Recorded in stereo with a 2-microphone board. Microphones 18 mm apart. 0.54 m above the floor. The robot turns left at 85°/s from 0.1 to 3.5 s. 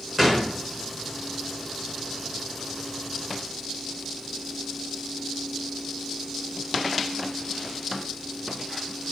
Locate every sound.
0.2 s a gunshot: 165° right, 1.5 m; by 0.6 s 165° left, 1.5 m